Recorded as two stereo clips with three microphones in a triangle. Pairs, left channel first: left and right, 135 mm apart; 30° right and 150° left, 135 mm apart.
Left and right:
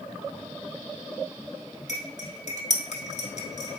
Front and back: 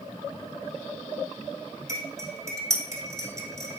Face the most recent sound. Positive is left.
turn(degrees=85)